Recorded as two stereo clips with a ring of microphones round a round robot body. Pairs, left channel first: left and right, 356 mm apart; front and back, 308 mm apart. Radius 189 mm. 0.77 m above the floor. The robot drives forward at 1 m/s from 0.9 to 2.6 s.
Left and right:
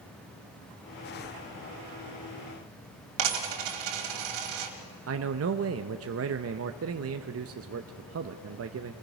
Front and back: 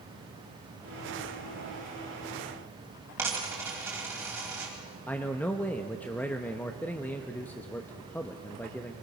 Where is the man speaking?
80° right, 0.7 m.